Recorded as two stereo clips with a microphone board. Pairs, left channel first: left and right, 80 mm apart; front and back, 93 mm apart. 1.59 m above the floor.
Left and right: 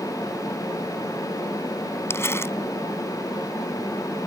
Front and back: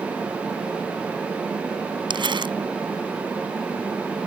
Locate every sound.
2.1 s crumpling: 150° left